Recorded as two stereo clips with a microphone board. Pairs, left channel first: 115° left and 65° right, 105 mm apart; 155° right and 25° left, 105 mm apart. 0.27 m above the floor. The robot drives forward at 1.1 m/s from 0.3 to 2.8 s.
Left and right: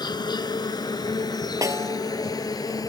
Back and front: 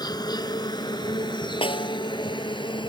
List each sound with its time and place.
0.0 s an insect: 155° left; by 2.9 s 165° left
1.6 s a snare drum: 125° right; by 2.0 s 130° right